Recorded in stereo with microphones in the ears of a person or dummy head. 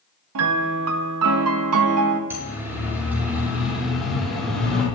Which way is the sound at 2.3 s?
10° right (ahead or behind).